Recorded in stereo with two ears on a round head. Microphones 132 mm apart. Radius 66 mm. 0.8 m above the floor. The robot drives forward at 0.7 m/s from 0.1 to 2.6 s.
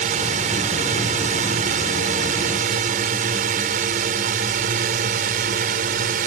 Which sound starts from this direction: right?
A drone, at 0.0 s.